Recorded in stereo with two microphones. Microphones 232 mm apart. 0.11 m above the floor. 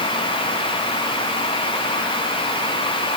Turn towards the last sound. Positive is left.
No sound to turn to.